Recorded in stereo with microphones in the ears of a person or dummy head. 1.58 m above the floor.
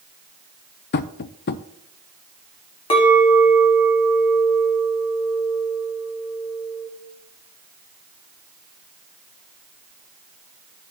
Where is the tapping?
50° left (ahead or behind), 0.5 m.